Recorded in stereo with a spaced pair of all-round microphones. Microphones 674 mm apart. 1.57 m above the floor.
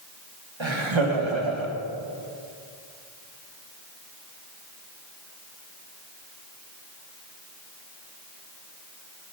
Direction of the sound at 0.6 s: 45° right (ahead or behind).